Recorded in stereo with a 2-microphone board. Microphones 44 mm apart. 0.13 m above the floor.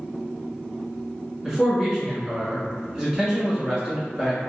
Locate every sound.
1.4 s a man speaking: 15° right (ahead or behind), 1.1 m